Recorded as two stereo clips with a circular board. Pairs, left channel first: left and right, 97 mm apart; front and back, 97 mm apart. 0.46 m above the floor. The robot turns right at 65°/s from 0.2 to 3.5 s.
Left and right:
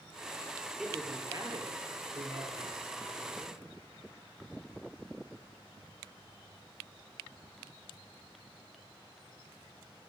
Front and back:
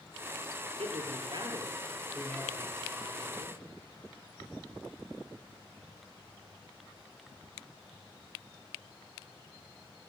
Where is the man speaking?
Straight behind, 8 m; by 3.6 s straight ahead, 8 m.